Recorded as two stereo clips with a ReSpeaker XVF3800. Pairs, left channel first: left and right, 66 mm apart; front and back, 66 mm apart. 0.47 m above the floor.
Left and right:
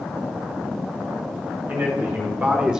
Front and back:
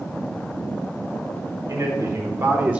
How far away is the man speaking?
About 2.5 m.